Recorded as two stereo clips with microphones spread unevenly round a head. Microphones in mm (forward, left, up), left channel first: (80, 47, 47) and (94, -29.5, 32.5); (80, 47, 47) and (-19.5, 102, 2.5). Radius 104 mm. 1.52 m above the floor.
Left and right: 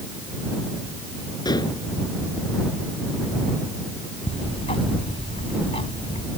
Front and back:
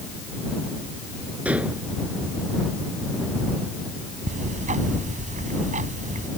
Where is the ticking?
135° left.